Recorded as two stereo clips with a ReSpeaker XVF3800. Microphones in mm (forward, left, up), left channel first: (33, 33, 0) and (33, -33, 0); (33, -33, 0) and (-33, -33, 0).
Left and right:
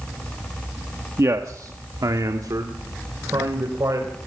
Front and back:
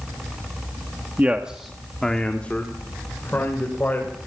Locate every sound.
1.2 s a man speaking: 120° right, 1.4 m; by 4.2 s 55° right, 4.5 m